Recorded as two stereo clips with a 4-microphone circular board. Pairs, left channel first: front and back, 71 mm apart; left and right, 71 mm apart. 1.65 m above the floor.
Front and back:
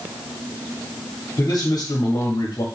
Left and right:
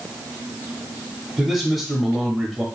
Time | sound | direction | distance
1.4 | a man speaking | 10° right | 0.8 m